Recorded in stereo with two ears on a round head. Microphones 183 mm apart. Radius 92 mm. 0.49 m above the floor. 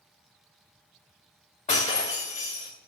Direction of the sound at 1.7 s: 35° left (ahead or behind).